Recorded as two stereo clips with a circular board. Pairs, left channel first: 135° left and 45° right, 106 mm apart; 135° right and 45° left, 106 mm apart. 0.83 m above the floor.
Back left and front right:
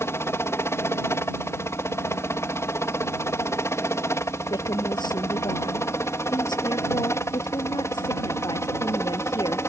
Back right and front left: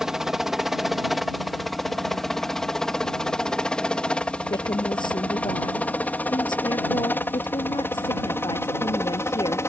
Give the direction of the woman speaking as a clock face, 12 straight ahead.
6 o'clock.